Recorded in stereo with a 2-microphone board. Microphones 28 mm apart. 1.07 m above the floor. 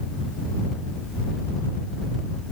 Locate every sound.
Only background noise.